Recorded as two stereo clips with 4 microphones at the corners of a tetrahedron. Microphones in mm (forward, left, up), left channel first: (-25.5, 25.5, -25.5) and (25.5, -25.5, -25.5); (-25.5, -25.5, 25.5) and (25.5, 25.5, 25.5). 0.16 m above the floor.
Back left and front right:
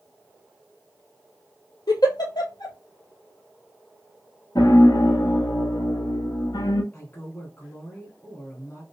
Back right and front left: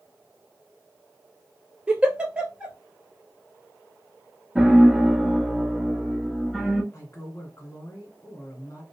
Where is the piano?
130° left, 0.7 m.